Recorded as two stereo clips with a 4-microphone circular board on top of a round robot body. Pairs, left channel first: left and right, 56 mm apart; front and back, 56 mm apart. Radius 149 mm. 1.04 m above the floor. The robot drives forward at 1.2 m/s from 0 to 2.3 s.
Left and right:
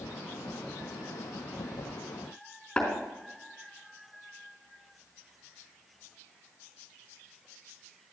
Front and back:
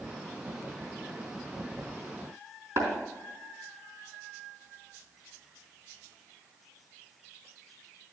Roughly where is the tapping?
Behind.